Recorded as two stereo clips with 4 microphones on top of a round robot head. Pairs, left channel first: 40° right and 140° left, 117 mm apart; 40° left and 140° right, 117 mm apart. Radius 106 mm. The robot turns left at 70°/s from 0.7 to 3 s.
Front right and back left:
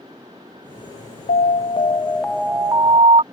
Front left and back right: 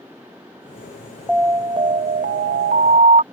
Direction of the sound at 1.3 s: 55° right.